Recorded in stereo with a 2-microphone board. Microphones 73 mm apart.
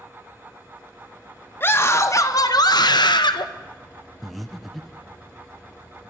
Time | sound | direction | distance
1.6 | a scream | 30° left (ahead or behind) | 2.0 m
4.2 | breathing | centre (ahead or behind) | 0.8 m